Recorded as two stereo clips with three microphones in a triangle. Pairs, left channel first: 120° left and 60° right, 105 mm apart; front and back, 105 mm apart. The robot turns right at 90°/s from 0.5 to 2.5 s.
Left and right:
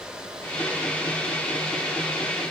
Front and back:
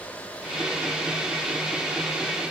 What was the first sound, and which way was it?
Only background noise.